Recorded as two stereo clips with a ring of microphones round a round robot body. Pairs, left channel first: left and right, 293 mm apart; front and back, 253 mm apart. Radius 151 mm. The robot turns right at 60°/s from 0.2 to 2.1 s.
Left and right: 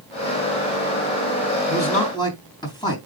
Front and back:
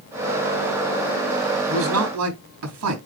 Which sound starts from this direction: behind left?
A man speaking, at 1.7 s.